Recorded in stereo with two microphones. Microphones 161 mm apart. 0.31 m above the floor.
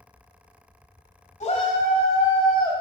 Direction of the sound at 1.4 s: 45° left (ahead or behind).